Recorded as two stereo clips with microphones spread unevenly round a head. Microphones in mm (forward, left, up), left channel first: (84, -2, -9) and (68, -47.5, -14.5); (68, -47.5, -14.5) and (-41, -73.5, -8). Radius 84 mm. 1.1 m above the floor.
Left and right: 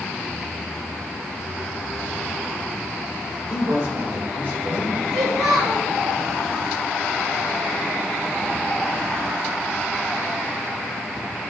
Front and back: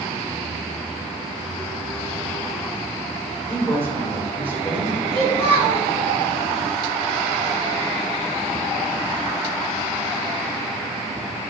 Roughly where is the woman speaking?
Right.